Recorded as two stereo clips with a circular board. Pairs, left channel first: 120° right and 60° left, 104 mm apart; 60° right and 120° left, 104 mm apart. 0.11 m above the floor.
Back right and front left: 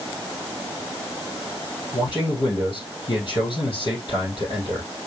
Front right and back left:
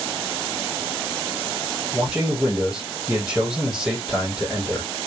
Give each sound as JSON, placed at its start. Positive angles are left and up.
{"t": 1.9, "sound": "a man speaking", "azimuth_deg": -150, "distance_m": 4.5}